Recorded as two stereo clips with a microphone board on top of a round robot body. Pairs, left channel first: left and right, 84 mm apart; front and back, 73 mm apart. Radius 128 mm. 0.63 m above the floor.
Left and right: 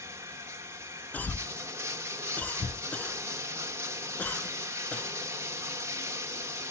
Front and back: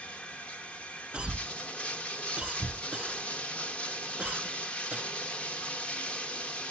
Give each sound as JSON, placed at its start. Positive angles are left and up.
{"t": 0.0, "sound": "running water", "azimuth_deg": -60, "distance_m": 1.0}
{"t": 1.1, "sound": "a cough", "azimuth_deg": 130, "distance_m": 0.5}